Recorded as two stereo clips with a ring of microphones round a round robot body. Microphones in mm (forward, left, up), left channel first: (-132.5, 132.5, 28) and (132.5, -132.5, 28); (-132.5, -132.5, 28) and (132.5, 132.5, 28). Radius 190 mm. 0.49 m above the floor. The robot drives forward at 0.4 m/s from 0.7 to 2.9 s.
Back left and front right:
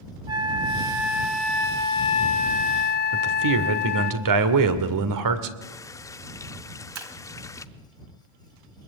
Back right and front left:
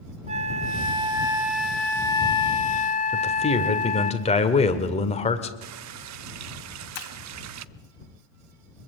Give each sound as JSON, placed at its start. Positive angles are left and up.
{"t": 0.3, "sound": "a flute", "azimuth_deg": 15, "distance_m": 0.9}
{"t": 3.1, "sound": "a man speaking", "azimuth_deg": -65, "distance_m": 2.0}
{"t": 5.6, "sound": "a running tap", "azimuth_deg": 55, "distance_m": 0.6}
{"t": 7.0, "sound": "breaking glass", "azimuth_deg": -100, "distance_m": 1.9}